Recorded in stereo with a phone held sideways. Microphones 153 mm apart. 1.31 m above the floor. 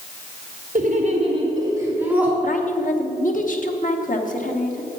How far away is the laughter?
About 1.7 m.